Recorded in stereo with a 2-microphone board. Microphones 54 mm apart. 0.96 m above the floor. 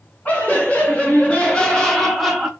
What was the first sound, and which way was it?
Laughter, 30° left (ahead or behind).